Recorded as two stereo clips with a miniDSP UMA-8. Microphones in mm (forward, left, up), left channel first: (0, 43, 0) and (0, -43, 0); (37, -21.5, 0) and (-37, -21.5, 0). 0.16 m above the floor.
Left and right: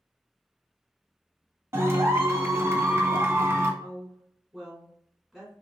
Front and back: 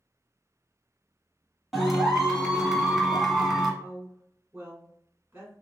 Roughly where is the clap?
Right.